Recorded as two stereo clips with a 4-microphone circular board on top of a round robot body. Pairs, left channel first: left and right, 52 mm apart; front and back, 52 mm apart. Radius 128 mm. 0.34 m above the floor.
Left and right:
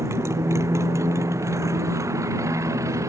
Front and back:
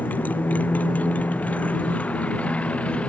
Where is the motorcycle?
55° right; by 3.1 s 65° right.